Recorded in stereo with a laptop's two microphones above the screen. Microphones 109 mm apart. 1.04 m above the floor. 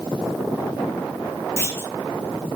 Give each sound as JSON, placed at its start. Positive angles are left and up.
{"t": 1.6, "sound": "a clunk", "side_deg": 25, "distance_m": 1.8}